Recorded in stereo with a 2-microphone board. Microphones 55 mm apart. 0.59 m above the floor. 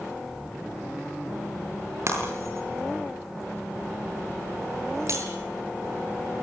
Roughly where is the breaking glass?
Right.